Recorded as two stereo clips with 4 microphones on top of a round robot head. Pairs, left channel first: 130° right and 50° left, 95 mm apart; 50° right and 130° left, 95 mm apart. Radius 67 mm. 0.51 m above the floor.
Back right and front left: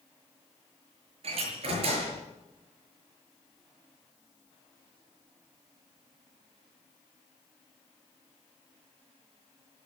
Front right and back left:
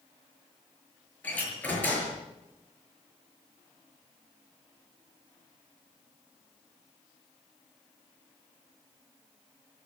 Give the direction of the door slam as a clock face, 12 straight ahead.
11 o'clock.